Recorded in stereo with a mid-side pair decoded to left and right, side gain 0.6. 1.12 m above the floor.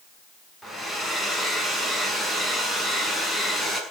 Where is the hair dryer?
5° right, 6.5 m.